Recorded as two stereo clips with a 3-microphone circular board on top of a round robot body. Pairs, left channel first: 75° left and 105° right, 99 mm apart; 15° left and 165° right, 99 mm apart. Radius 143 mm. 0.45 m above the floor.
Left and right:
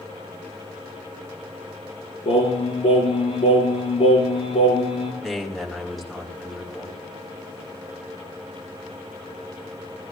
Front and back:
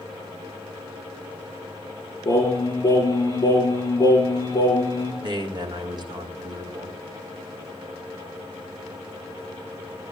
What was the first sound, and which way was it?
Singing, 65° left.